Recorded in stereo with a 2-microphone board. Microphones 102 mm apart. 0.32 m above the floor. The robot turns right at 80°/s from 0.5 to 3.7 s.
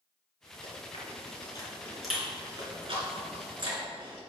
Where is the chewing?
65° left (ahead or behind), 3 m; by 4.2 s 45° right (ahead or behind), 3 m.